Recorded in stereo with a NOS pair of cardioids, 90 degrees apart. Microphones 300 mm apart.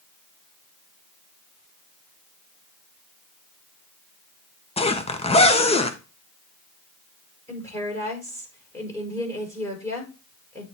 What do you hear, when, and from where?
4.8 s a zipper: 20° left, 1.2 m
7.5 s a woman speaking: 10° left, 5 m